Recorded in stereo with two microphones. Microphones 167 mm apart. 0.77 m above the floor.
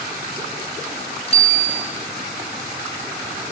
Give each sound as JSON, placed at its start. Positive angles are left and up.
{"t": 1.3, "sound": "a bicycle bell", "side_deg": 35, "distance_m": 3.0}